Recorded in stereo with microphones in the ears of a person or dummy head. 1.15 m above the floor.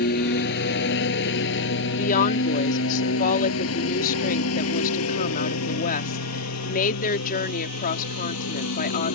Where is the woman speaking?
50° left (ahead or behind).